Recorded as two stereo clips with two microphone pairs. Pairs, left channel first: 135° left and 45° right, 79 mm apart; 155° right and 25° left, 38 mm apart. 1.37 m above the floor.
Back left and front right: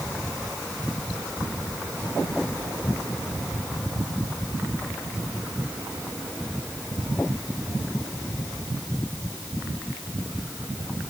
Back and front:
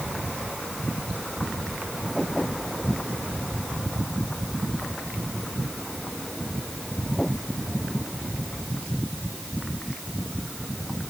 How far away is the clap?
I don't hear a clap.